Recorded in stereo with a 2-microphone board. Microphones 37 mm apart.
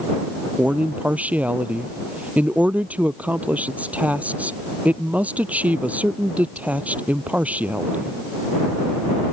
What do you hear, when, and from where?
0.6 s a man speaking: 45° right (ahead or behind)